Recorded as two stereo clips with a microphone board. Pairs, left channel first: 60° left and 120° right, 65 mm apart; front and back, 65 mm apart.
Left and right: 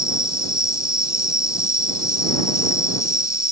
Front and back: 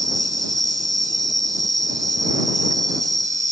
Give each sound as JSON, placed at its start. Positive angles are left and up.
{"t": 0.0, "sound": "an insect", "azimuth_deg": 160}